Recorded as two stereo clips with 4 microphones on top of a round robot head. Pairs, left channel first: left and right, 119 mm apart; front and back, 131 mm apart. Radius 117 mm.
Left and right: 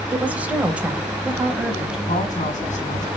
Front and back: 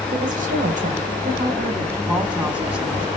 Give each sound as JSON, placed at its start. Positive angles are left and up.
{"t": 0.1, "sound": "a woman speaking", "azimuth_deg": -165, "distance_m": 3.0}
{"t": 2.1, "sound": "a woman speaking", "azimuth_deg": 95, "distance_m": 5.0}